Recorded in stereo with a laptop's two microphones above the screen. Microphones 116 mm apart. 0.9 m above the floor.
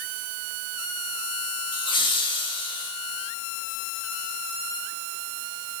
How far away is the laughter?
About 1.4 m.